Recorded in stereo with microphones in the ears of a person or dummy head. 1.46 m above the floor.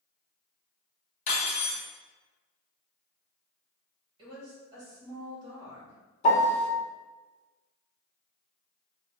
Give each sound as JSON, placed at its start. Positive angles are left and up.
{"t": 1.3, "sound": "cutlery clinking", "side_deg": 35, "distance_m": 1.4}
{"t": 4.2, "sound": "a woman speaking", "side_deg": -25, "distance_m": 1.6}
{"t": 6.2, "sound": "a piano", "side_deg": 40, "distance_m": 0.5}